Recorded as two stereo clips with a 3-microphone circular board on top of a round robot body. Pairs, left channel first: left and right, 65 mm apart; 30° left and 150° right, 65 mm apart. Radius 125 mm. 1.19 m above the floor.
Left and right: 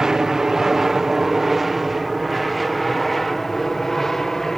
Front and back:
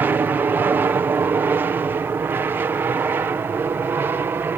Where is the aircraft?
165° right; by 4.6 s 175° left.